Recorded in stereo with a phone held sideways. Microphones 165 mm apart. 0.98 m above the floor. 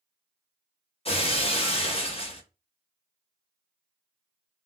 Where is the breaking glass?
35° left (ahead or behind), 0.6 m.